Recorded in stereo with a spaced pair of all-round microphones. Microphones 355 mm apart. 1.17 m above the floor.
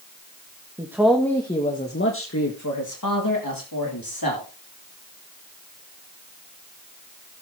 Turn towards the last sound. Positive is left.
turn(degrees=80)